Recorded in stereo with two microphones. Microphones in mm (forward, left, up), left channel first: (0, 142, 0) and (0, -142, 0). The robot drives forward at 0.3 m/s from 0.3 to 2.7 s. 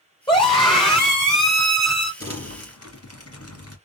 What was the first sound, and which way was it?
A scream, 20° left (ahead or behind).